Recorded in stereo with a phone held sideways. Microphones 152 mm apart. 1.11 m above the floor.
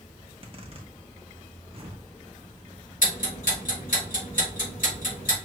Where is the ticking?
70° left (ahead or behind), 3 m.